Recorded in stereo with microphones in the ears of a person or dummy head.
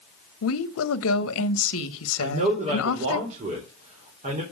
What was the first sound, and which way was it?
A woman speaking, 75° left (ahead or behind).